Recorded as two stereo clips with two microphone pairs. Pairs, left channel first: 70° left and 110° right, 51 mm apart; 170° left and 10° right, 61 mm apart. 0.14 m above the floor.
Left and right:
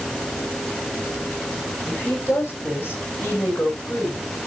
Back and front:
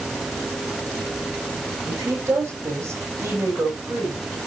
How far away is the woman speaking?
About 8 m.